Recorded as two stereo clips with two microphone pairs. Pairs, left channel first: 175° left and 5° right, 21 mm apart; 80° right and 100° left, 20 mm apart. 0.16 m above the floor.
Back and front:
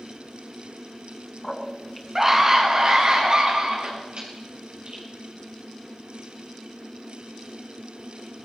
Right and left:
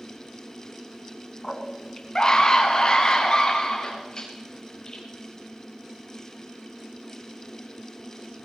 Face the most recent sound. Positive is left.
turn(degrees=-25)